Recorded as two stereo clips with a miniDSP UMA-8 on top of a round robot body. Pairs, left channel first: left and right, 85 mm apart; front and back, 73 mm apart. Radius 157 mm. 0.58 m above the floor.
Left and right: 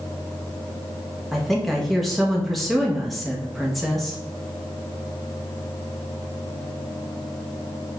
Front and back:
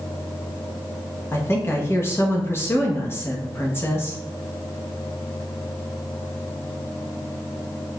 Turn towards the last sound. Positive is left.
turn(degrees=0)